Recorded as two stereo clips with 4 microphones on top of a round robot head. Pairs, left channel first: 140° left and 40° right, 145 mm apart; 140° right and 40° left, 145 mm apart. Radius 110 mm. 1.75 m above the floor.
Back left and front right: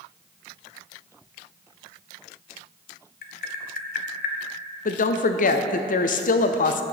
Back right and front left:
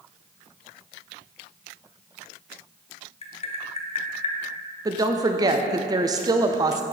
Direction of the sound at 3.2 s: 170° left.